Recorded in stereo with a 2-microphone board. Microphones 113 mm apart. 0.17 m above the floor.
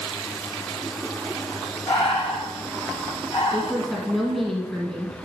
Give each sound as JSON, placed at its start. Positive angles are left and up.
{"t": 1.9, "sound": "breathing", "side_deg": 40, "distance_m": 2.5}
{"t": 3.5, "sound": "a woman speaking", "side_deg": 0, "distance_m": 1.4}